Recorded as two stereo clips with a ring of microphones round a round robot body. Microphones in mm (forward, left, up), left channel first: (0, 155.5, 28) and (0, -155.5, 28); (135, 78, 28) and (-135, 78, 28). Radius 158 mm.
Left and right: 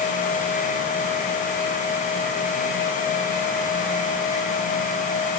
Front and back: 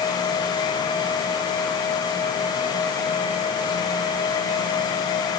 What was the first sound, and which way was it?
Only background noise.